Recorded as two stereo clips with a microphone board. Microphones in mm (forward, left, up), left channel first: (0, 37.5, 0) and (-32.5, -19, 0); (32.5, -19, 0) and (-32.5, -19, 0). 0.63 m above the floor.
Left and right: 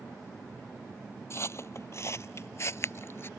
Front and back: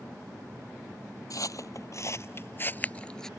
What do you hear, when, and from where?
1.3 s footsteps: 15° left; by 3.3 s 75° left